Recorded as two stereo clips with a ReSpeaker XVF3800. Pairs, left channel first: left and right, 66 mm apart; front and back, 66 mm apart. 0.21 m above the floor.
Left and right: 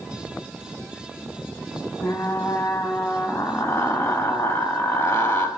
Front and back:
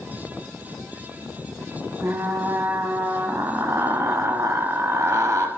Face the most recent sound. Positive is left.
turn(degrees=130)